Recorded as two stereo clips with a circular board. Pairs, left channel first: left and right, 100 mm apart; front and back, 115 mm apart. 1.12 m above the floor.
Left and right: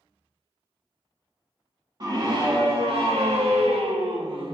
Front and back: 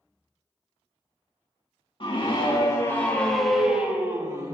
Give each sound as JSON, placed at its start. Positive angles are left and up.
{"t": 2.0, "sound": "a scream", "azimuth_deg": -45, "distance_m": 2.0}